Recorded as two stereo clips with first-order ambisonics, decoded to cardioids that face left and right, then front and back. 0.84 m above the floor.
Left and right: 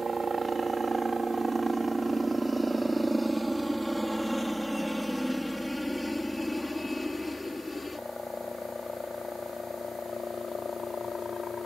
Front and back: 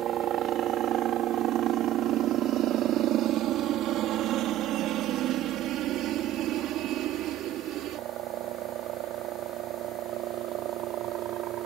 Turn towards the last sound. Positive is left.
turn(degrees=155)